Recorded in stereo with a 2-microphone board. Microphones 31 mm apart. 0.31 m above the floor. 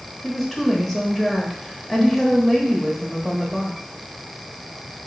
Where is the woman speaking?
5° left (ahead or behind), 0.9 m.